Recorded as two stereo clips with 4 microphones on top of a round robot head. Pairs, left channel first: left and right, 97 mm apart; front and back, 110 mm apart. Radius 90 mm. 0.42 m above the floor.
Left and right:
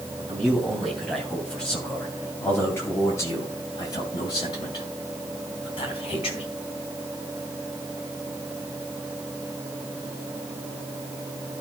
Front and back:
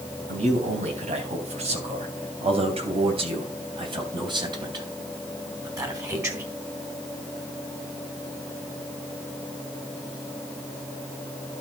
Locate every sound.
0.3 s a man speaking: 175° right, 3.5 m; by 6.4 s 120° left, 3.5 m